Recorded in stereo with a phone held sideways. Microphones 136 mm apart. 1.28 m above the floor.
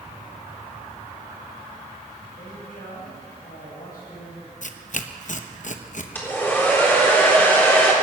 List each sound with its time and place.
2.4 s a man speaking: 85° left, 8 m
4.6 s tearing paper: 60° left (ahead or behind), 0.8 m
6.2 s a hair dryer: 15° left (ahead or behind), 3.5 m